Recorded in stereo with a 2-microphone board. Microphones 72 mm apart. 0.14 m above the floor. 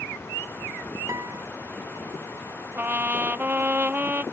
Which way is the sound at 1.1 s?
45° right (ahead or behind).